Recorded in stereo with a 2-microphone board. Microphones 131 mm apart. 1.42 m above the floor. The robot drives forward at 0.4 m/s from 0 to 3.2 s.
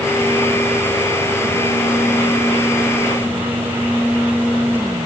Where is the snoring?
I don't hear snoring.